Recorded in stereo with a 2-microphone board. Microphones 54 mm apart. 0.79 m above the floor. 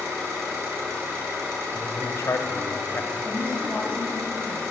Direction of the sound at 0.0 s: 55° right (ahead or behind).